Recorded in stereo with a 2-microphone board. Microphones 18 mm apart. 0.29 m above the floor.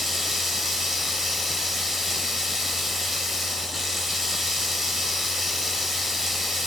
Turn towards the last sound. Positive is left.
turn(degrees=-10)  # may be behind; listen again after turning